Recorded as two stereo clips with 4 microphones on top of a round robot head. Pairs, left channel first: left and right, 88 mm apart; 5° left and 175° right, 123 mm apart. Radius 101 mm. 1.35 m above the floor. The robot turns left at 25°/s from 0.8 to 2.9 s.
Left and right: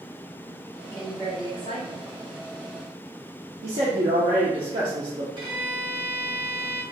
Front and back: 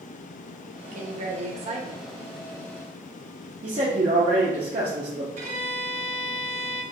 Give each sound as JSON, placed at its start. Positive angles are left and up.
{"t": 0.9, "sound": "a woman speaking", "azimuth_deg": 160, "distance_m": 0.7}
{"t": 3.6, "sound": "a man speaking", "azimuth_deg": -130, "distance_m": 0.6}
{"t": 5.4, "sound": "a violin", "azimuth_deg": -140, "distance_m": 0.7}